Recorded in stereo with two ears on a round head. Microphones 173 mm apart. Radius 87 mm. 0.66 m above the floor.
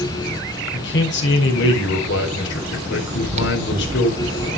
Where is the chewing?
35° right (ahead or behind), 0.8 m.